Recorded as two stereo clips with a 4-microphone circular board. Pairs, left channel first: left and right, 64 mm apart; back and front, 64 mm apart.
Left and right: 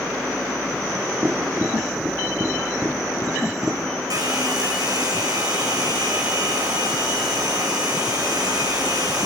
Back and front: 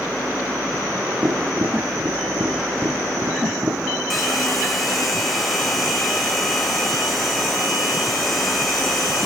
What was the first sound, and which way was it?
Tapping, 40° right.